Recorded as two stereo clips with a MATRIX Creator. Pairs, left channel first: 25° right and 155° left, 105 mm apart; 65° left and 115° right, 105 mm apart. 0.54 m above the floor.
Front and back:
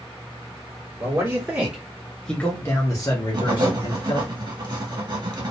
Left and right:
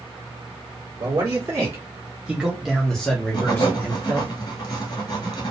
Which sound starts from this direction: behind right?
A man speaking, at 1.0 s.